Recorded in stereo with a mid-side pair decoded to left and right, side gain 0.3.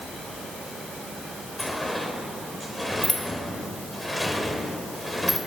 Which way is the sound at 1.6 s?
5° left.